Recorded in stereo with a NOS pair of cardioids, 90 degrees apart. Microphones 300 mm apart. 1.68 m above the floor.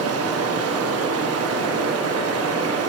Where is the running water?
55° right, 1.1 m.